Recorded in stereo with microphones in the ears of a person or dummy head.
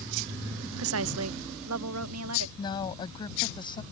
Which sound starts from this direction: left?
A woman speaking, at 2.6 s.